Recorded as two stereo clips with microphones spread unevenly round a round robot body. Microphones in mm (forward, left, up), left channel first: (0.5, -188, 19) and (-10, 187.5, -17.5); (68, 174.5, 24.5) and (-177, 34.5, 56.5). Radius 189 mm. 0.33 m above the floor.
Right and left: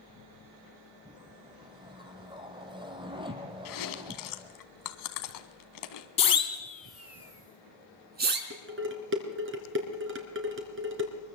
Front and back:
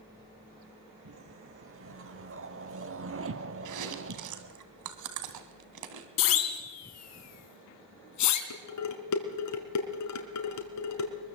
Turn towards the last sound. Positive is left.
turn(degrees=35)